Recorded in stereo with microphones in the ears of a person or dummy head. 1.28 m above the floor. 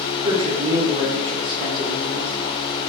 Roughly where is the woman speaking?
Right.